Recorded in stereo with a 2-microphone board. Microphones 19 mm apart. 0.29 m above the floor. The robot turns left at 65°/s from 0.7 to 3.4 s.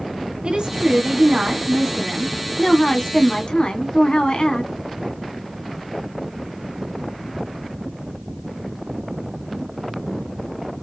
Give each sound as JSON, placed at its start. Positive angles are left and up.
{"t": 0.4, "sound": "a woman speaking", "azimuth_deg": -80, "distance_m": 2.0}